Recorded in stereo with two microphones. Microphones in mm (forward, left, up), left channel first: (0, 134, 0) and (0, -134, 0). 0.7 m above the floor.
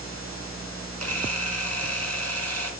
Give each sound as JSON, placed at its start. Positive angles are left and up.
{"t": 1.0, "sound": "a camera shutter", "side_deg": -70, "distance_m": 2.0}